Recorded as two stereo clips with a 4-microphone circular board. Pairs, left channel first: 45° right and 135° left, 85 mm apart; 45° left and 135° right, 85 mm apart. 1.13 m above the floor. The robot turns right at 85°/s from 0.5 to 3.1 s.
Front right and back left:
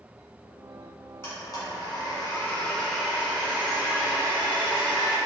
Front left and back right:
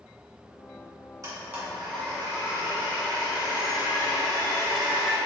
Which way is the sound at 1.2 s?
100° right.